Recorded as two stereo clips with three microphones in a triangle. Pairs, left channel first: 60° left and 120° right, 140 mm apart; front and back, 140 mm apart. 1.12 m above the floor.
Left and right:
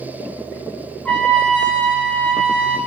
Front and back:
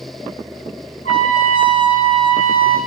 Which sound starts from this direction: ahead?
A trumpet, at 1.1 s.